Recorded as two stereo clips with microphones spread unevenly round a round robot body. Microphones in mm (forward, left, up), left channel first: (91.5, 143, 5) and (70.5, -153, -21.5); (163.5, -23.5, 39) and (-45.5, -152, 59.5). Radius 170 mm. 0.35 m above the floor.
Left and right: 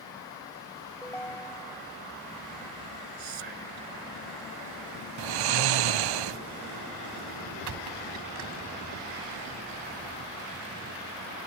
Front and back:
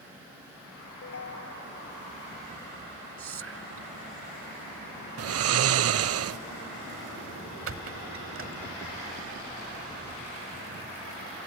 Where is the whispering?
120° right.